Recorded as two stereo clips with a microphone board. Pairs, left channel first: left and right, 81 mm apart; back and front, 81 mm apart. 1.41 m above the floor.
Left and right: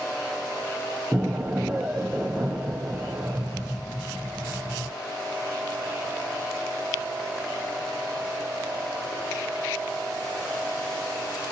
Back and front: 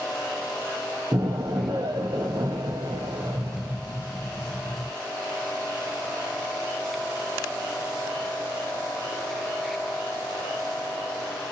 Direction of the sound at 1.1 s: 10° right.